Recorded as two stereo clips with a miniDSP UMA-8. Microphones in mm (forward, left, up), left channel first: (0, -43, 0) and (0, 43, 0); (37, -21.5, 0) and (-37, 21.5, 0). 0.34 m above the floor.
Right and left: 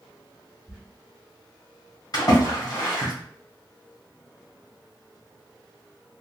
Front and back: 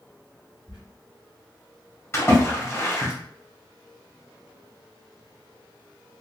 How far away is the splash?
About 1.6 m.